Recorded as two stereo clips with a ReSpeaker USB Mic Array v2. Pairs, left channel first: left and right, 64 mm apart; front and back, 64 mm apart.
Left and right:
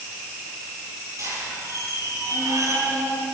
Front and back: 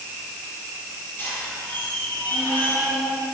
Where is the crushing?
I don't hear crushing.